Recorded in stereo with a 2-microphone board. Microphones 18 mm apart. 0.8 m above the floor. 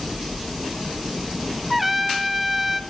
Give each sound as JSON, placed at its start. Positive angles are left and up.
{"t": 1.7, "sound": "a trumpet", "side_deg": -10, "distance_m": 0.7}